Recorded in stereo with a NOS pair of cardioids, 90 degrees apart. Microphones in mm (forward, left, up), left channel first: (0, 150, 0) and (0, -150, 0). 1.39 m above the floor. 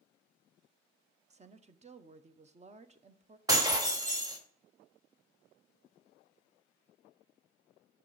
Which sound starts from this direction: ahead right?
A woman speaking, at 1.3 s.